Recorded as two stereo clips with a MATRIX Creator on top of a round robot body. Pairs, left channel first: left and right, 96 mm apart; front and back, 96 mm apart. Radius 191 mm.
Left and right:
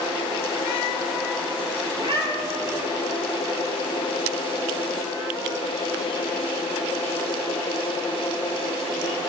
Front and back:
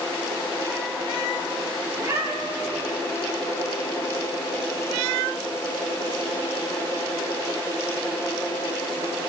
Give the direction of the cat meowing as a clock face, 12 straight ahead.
4 o'clock.